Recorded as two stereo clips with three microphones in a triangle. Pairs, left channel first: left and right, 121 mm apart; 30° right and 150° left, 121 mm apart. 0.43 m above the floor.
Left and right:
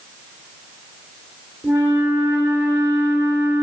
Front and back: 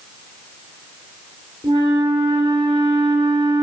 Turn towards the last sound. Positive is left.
turn(degrees=-160)